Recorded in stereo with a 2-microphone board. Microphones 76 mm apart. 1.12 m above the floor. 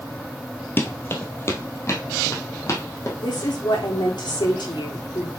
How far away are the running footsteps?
About 1.4 m.